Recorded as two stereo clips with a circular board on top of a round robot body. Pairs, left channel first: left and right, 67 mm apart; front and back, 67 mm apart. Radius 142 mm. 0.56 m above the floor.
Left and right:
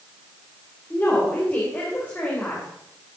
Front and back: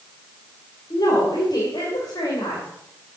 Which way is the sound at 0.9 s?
25° left.